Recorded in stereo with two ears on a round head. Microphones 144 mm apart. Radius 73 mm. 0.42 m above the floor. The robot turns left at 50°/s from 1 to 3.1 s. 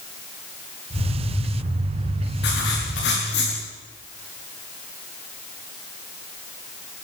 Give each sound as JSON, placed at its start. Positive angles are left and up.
{"t": 2.4, "sound": "writing", "azimuth_deg": 105, "distance_m": 8.5}